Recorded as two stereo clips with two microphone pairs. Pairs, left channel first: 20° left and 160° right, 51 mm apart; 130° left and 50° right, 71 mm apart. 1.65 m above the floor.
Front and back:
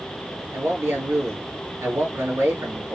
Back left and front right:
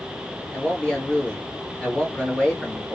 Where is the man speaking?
160° right, 2 m.